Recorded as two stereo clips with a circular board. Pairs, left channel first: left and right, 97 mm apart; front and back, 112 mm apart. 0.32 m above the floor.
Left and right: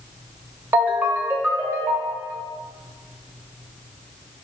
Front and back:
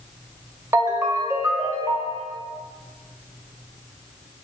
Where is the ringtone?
140° right, 0.7 m.